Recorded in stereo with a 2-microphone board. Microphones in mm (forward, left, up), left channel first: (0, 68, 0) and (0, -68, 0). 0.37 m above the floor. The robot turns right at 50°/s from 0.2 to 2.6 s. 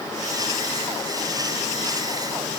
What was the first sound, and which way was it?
Only background noise.